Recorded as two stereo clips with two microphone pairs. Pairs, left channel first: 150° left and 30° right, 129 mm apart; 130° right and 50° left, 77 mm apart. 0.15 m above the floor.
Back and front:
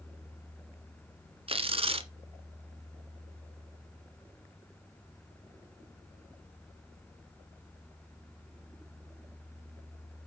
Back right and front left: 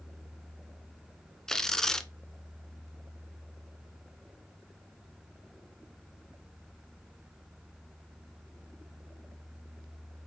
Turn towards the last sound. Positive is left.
turn(degrees=-45)